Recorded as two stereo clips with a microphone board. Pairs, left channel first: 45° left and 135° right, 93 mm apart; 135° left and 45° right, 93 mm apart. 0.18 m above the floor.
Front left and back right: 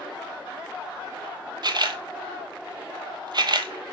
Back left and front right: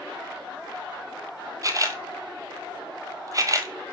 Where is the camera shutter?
95° right, 0.8 m.